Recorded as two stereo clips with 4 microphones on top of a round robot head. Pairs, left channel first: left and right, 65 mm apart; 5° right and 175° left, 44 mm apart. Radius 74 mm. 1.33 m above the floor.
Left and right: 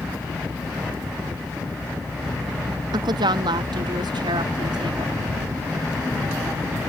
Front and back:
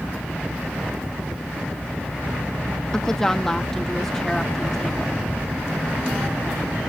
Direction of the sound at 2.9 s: 85° right.